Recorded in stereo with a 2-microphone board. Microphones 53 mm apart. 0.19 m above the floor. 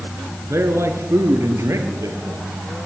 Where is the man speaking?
55° right (ahead or behind), 3 m; by 2.5 s 65° right (ahead or behind), 5 m.